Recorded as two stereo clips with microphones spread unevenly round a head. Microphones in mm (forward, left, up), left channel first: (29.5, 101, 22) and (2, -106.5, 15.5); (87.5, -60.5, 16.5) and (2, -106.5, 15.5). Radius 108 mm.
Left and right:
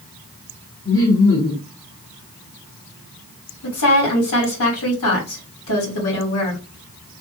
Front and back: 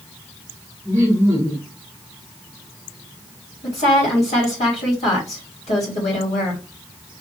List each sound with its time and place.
0.8 s laughter: 130° left, 1.6 m
3.6 s a woman speaking: 65° left, 2.5 m